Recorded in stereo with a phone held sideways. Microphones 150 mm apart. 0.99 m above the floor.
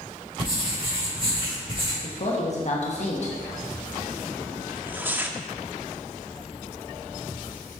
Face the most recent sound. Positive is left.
turn(degrees=-15)  # may be behind; listen again after turning